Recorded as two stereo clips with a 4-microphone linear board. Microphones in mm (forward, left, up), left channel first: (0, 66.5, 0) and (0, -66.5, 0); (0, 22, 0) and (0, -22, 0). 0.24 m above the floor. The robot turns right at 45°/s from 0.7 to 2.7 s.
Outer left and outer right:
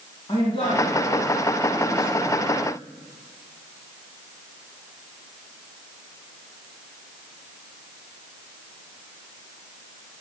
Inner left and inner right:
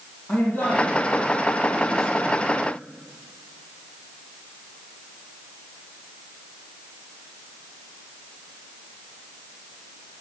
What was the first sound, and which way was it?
A man speaking, 125° left.